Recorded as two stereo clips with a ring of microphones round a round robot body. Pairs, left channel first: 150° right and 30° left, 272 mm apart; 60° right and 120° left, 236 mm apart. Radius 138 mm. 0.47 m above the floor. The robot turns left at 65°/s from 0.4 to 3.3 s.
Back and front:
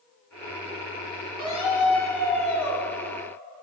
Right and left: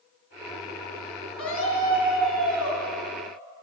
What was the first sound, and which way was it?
A scream, 30° right.